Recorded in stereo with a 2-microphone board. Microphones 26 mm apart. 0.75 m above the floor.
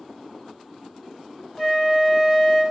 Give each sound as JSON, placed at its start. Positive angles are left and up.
{"t": 1.6, "sound": "a flute", "side_deg": 0, "distance_m": 1.4}